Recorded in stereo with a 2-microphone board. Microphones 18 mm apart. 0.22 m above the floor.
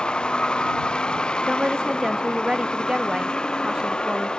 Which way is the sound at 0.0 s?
70° left (ahead or behind).